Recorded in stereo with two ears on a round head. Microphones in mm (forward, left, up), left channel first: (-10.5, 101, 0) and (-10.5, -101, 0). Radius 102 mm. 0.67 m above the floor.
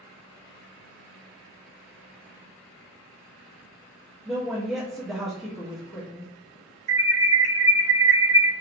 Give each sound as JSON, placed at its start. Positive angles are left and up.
{"t": 4.2, "sound": "a woman speaking", "side_deg": 0, "distance_m": 1.1}
{"t": 6.9, "sound": "an alarm", "side_deg": -40, "distance_m": 1.4}